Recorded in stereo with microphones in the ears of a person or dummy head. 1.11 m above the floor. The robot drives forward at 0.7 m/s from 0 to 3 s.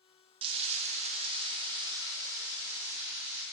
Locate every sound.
0.4 s frying: 30° right (ahead or behind), 0.6 m; by 3.4 s 10° right (ahead or behind), 1.6 m